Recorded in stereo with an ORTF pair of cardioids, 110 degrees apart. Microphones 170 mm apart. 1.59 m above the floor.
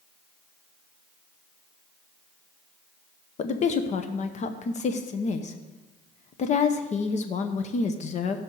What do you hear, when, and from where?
3.4 s a woman speaking: 45° left, 0.9 m